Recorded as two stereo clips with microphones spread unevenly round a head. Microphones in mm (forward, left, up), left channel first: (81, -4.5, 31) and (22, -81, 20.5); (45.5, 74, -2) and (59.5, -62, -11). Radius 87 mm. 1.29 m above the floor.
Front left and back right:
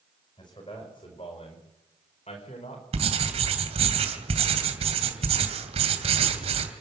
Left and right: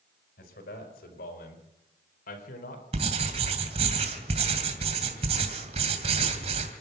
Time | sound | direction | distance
0.4 | a man speaking | 110° left | 5 m
2.9 | writing | 135° right | 2.5 m